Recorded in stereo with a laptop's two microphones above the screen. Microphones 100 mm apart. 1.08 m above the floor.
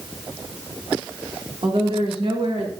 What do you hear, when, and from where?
1.6 s a woman speaking: 70° right (ahead or behind), 2.5 m; by 2.7 s 80° right, 3 m